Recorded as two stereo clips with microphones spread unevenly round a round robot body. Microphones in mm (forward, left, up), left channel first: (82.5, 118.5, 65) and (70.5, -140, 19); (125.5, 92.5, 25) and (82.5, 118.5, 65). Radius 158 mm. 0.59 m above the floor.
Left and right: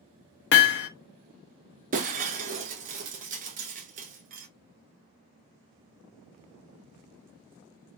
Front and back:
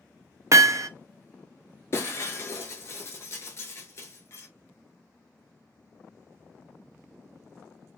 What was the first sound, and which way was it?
Hammering, 85° left.